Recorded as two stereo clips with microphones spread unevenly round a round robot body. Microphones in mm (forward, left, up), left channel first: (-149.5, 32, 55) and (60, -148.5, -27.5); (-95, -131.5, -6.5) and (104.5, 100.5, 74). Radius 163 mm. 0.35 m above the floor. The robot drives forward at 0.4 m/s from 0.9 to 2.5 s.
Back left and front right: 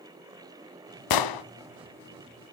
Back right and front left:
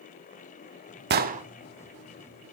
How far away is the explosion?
About 0.7 m.